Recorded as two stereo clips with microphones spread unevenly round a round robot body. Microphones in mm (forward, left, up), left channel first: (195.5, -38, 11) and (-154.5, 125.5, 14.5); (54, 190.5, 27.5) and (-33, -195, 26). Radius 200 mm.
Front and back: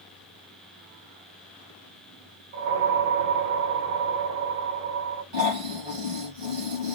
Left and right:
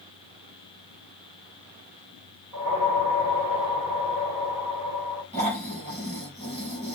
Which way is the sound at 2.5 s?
175° left.